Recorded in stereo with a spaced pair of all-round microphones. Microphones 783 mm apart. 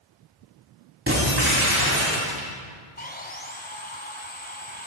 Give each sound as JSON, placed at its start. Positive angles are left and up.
{"t": 1.1, "sound": "breaking glass", "side_deg": -15, "distance_m": 8.0}
{"t": 3.0, "sound": "sawing", "side_deg": 10, "distance_m": 2.0}